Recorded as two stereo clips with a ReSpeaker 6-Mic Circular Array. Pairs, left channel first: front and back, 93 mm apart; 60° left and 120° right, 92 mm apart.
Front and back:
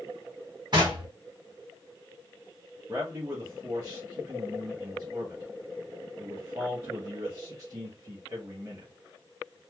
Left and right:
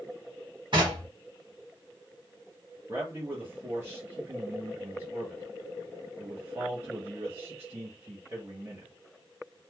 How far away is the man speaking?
About 1.2 m.